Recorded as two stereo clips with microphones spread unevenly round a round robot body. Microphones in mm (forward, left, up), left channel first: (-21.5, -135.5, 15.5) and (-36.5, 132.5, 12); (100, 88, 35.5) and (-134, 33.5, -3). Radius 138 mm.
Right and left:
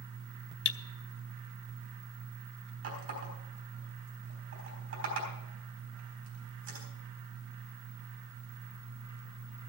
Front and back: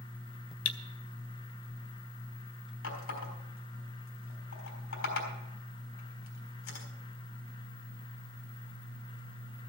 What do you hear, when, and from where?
0.7 s cutlery clinking: 35° right, 0.6 m
2.8 s a running tap: 50° left, 4 m